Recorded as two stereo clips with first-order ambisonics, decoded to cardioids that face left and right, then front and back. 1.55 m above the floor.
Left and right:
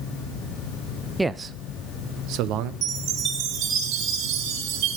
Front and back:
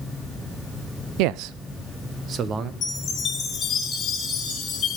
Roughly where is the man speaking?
Behind.